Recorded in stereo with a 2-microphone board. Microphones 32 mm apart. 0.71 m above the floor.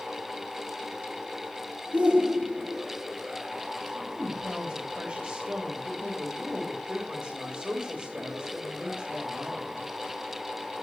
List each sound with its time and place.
1.9 s a shout: 45° right (ahead or behind), 2.0 m
4.0 s a woman speaking: 50° right (ahead or behind), 3.5 m